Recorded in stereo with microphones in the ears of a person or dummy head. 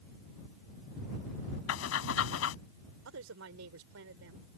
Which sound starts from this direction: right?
A woman speaking, at 3.0 s.